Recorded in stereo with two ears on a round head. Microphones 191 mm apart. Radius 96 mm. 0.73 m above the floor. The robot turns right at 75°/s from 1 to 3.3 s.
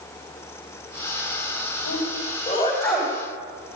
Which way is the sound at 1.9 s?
80° left.